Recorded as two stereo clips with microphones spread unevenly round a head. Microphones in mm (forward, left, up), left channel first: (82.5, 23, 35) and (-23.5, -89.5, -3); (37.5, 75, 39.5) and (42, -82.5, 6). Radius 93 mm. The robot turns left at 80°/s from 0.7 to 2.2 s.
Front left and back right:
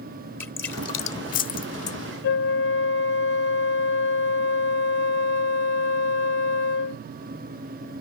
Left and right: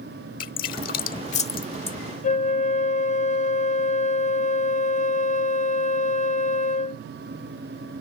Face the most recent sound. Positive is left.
turn(degrees=50)